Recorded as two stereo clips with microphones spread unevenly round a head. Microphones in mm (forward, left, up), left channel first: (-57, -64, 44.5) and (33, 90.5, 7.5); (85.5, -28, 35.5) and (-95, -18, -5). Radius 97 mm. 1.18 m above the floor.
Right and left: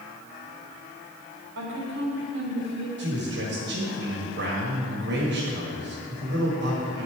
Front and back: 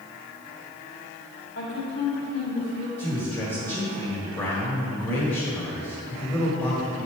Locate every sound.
1.6 s a woman speaking: 35° left, 3 m
3.0 s a man speaking: 70° left, 1.8 m